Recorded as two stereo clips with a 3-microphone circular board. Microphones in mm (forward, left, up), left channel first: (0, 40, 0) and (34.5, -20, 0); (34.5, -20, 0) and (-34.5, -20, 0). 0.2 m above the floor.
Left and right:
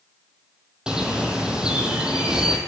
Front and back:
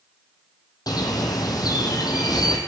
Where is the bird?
20° left, 1.4 m.